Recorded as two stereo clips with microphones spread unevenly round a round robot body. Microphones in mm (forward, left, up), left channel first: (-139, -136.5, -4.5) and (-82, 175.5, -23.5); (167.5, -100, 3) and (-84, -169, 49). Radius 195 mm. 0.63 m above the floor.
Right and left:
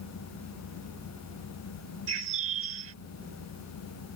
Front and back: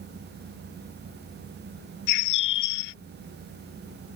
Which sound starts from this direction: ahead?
A bird, at 2.1 s.